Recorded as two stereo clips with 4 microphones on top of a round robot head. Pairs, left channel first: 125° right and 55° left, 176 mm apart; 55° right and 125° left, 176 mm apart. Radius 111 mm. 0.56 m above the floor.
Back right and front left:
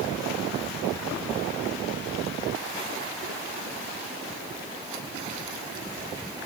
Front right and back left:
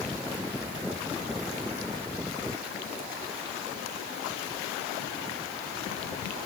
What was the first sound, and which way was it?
Only background noise.